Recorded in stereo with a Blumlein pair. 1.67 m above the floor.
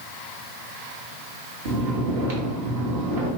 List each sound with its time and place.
1.6 s snoring: 50° right, 1.2 m